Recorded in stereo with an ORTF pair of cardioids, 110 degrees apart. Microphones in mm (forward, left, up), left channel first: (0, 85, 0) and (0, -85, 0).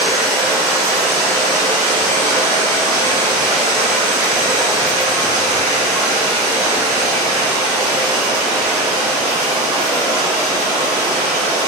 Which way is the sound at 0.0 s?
65° right.